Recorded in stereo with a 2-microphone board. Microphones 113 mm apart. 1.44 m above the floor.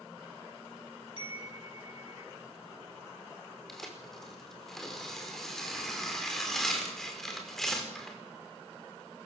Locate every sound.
1.2 s a chime: 55° left (ahead or behind), 4.5 m
3.7 s tearing paper: 5° left (ahead or behind), 5 m